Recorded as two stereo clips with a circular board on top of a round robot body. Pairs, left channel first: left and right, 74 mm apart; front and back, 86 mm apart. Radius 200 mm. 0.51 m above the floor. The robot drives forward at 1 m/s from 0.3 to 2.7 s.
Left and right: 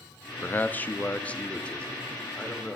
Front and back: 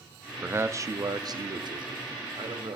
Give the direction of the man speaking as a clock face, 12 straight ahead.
8 o'clock.